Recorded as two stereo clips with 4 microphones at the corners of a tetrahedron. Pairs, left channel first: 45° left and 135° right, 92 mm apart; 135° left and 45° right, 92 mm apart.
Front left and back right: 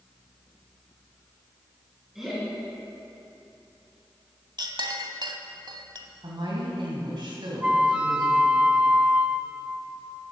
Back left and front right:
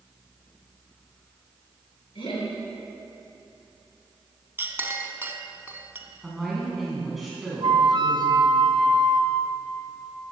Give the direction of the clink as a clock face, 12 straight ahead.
4 o'clock.